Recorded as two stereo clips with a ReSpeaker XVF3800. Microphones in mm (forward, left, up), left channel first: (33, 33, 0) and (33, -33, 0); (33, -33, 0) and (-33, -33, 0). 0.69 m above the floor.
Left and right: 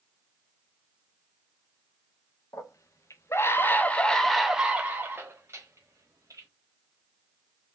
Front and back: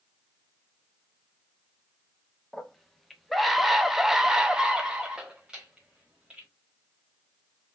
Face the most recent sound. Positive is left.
turn(degrees=-105)